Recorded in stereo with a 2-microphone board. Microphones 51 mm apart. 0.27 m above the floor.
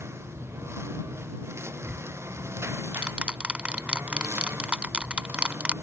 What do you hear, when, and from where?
0.0 s a lawn mower: 55° right (ahead or behind)
1.8 s ticking: 25° right (ahead or behind)